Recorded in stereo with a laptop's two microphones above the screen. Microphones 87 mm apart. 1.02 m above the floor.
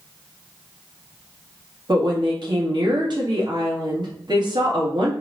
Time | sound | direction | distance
1.9 | a woman speaking | 60° right (ahead or behind) | 1.7 m